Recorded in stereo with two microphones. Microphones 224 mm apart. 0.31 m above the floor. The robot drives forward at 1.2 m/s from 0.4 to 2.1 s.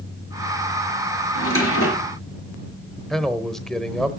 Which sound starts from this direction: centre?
A man speaking, at 3.1 s.